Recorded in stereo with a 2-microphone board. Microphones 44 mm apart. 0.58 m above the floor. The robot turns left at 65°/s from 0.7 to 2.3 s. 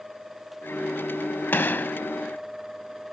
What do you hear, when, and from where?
1.5 s a gunshot: 90° left; by 2.0 s 60° left